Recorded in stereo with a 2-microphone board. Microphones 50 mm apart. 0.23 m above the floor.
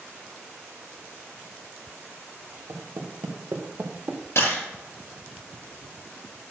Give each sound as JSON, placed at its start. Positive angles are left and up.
{"t": 2.7, "sound": "footsteps", "side_deg": -80, "distance_m": 3.0}
{"t": 4.3, "sound": "a camera shutter", "side_deg": 60, "distance_m": 5.5}